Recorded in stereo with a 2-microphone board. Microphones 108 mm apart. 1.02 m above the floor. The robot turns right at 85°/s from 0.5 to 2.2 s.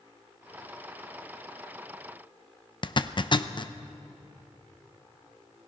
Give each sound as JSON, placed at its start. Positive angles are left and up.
{"t": 2.8, "sound": "a zipper", "side_deg": 45, "distance_m": 0.6}